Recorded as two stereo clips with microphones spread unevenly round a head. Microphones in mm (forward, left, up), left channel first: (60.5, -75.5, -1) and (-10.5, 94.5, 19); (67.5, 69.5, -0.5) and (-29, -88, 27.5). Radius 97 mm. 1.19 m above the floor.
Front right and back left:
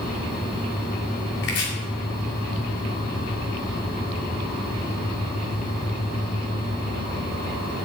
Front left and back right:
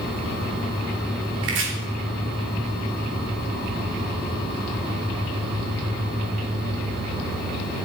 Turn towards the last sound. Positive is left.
turn(degrees=-105)